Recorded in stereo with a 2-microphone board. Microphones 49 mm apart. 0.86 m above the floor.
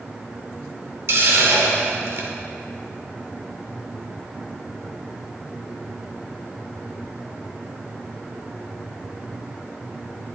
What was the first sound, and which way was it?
A hiss, 70° right (ahead or behind).